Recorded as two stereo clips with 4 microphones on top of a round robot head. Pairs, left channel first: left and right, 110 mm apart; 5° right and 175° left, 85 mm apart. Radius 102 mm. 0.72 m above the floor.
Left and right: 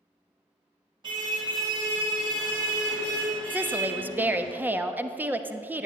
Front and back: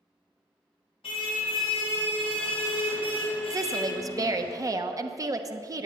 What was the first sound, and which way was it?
A car horn, 35° right.